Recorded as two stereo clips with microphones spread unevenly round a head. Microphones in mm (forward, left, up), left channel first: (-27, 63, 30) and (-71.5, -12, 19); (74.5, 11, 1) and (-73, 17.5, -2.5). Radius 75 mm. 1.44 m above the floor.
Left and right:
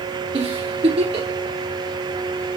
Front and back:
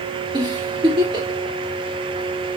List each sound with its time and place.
0.3 s a giggle: 120° right, 3 m